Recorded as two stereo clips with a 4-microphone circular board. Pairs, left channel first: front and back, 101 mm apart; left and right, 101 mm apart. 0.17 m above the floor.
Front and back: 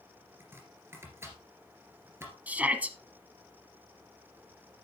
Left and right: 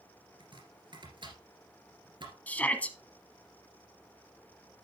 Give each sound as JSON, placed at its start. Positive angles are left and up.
{"t": 0.4, "sound": "chopping", "azimuth_deg": -120, "distance_m": 2.5}
{"t": 2.5, "sound": "a shout", "azimuth_deg": 135, "distance_m": 1.0}